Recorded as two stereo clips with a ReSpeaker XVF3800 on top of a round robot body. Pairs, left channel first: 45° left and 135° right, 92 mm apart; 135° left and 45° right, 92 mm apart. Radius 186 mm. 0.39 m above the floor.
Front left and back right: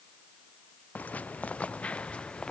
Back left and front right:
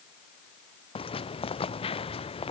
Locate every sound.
0.9 s footsteps: 120° left; by 2.5 s 125° left